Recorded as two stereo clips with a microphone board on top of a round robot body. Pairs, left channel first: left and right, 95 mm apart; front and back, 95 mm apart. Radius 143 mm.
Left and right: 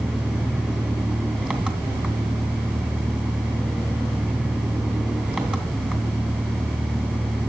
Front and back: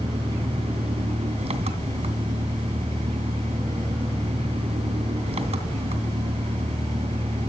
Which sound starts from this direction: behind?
An engine running, at 0.0 s.